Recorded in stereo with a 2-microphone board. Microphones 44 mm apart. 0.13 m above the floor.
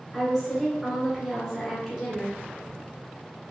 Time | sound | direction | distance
0.1 | a woman speaking | 5° right (ahead or behind) | 1.3 m